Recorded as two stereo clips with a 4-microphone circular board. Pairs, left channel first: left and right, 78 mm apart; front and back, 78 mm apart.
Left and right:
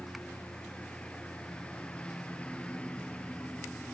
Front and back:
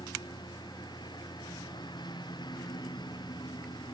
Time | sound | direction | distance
0.0 | a lawn mower | 15° left | ?